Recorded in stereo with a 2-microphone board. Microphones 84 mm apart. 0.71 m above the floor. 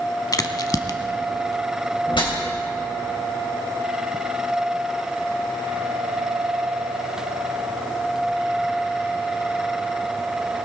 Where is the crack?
50° left (ahead or behind), 0.8 m.